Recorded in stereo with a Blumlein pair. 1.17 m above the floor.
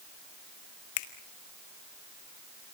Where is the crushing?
No crushing in this recording.